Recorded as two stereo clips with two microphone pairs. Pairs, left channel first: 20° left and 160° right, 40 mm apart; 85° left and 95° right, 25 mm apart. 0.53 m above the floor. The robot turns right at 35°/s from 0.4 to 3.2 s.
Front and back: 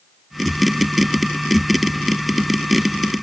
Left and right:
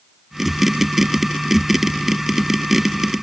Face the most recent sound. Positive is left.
No sound to turn to.